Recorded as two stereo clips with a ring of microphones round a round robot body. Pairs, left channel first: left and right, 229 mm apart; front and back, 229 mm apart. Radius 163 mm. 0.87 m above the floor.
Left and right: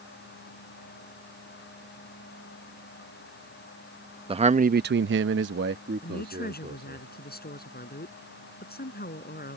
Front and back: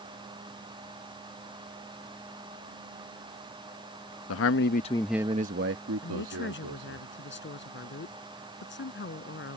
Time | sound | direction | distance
4.3 | a man speaking | 25° right | ?
6.0 | a woman speaking | 40° left | ?